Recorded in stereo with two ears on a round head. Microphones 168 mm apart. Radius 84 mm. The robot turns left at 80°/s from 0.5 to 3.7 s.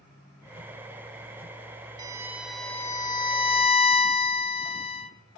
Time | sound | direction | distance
2.0 | a violin | 135° right | 0.7 m